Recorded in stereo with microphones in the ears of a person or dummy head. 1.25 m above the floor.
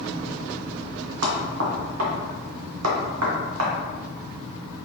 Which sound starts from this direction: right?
Knocking, at 1.2 s.